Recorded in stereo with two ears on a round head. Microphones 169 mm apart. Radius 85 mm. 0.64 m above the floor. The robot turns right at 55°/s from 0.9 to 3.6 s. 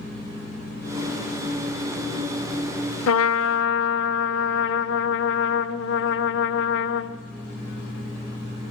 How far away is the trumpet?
About 0.9 m.